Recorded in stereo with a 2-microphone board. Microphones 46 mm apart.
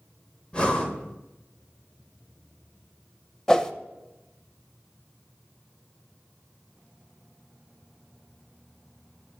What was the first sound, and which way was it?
Breathing, 25° left (ahead or behind).